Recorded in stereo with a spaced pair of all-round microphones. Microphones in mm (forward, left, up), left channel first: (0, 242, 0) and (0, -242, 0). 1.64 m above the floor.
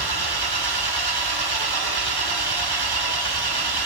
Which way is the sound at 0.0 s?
50° right (ahead or behind).